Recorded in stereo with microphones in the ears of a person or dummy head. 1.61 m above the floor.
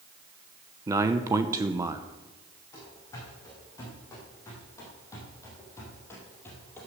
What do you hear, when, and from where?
0.9 s a man speaking: 15° right (ahead or behind), 0.7 m
2.7 s running footsteps: 20° left (ahead or behind), 7 m; by 6.9 s 10° left (ahead or behind), 3 m